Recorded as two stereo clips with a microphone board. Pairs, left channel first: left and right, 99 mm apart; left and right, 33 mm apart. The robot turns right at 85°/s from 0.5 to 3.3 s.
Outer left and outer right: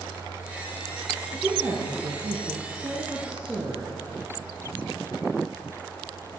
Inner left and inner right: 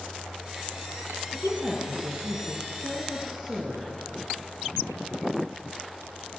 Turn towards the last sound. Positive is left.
turn(degrees=-15)